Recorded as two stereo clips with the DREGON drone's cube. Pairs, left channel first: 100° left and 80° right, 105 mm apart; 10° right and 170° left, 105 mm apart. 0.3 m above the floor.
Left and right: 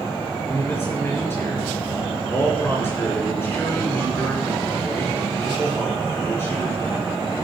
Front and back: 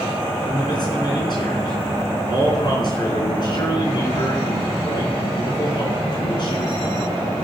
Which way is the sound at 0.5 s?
35° left.